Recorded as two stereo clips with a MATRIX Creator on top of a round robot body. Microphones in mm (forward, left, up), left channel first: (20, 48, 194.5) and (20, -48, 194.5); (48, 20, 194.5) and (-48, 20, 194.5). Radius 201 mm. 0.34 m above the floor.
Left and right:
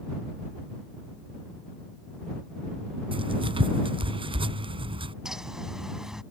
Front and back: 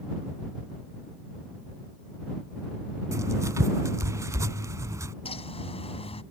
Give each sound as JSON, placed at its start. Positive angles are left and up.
{"t": 3.1, "sound": "writing", "azimuth_deg": -120}
{"t": 5.2, "sound": "a bird", "azimuth_deg": -5}